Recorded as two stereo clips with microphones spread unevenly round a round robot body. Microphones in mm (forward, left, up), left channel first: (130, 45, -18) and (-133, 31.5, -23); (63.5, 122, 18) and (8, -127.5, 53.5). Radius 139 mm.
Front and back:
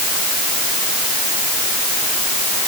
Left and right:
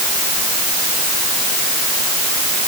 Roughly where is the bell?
I don't hear a bell.